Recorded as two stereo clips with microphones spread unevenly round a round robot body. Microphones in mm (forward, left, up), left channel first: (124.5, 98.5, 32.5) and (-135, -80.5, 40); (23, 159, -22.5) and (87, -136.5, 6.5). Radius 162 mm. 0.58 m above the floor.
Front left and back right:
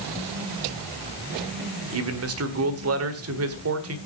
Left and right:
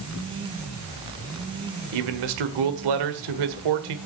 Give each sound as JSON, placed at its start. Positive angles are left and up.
{"t": 1.9, "sound": "a man speaking", "azimuth_deg": -100, "distance_m": 1.7}